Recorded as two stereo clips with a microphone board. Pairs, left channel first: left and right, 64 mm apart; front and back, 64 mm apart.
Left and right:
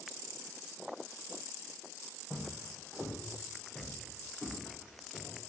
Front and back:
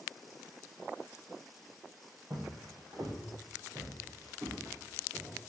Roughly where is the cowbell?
No cowbell in this recording.